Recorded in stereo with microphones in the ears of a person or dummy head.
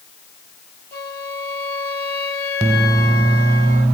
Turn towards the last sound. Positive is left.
turn(degrees=15)  # may be behind; listen again after turning